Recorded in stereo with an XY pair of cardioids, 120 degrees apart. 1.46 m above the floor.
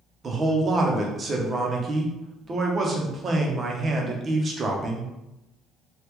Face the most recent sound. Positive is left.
turn(degrees=-35)